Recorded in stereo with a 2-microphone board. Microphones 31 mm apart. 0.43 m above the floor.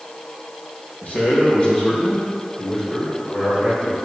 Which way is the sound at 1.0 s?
45° left (ahead or behind).